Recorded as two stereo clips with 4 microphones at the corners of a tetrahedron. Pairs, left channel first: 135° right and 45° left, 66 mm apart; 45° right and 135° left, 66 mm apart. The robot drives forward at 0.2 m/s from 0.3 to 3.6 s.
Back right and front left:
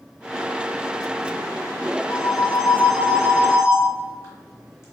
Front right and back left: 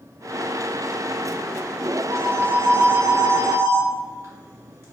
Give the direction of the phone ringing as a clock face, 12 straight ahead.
6 o'clock.